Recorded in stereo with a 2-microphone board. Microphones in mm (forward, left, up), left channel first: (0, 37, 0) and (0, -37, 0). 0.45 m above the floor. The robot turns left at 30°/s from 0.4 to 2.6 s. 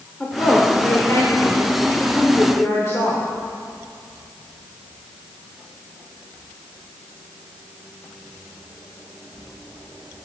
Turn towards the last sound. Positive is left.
turn(degrees=75)